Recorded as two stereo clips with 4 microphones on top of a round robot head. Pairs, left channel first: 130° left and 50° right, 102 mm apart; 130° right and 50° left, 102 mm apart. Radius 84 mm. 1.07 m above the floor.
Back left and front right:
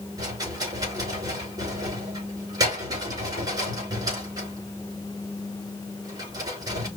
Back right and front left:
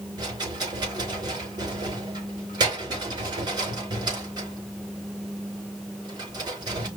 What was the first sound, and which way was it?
A rattle, straight ahead.